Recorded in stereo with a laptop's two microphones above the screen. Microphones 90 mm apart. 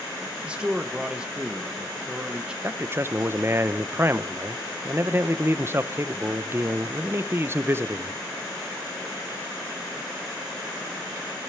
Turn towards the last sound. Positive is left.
turn(degrees=-30)  # may be behind; listen again after turning